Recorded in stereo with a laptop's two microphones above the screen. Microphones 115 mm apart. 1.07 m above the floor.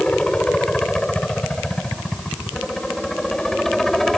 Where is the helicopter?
5° left (ahead or behind); by 4.2 s centre (ahead or behind).